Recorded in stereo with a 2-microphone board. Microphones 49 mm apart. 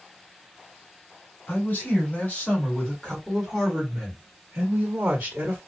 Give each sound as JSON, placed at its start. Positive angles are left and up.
{"t": 1.5, "sound": "a man speaking", "side_deg": 40, "distance_m": 1.7}